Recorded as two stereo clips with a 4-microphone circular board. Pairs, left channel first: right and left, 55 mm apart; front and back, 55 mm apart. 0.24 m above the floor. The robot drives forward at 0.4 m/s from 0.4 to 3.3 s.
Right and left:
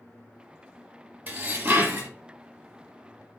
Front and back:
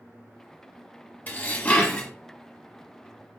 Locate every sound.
1.3 s dishes clattering: 45° left, 1.1 m; by 2.1 s 65° left, 1.0 m